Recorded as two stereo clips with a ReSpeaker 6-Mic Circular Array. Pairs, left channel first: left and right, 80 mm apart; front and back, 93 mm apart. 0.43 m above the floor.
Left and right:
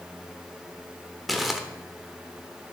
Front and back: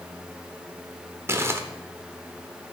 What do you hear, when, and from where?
1.3 s crumpling: straight behind, 1.1 m